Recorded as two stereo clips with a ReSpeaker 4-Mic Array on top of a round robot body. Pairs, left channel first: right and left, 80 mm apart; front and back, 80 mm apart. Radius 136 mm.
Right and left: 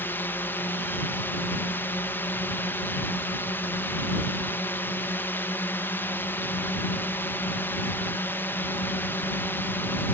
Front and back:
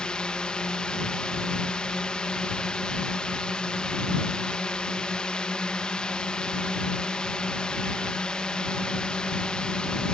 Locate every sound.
0.0 s a drone: 65° right